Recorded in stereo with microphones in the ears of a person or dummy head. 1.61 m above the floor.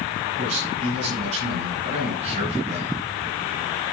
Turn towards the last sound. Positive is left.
turn(degrees=-45)  # may be behind; listen again after turning